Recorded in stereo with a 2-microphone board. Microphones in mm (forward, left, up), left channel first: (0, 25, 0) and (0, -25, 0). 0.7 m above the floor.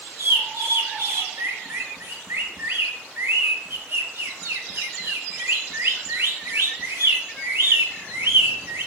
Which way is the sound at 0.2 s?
55° right (ahead or behind).